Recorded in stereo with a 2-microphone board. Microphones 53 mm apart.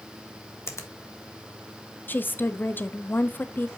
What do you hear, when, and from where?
0.7 s a finger snap: 55° left (ahead or behind), 1.2 m
2.1 s a woman speaking: 35° left (ahead or behind), 0.6 m